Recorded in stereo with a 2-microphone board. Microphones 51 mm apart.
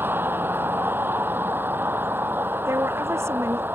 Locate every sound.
0.0 s a vehicle: 40° right (ahead or behind)
2.7 s a woman speaking: 60° right (ahead or behind)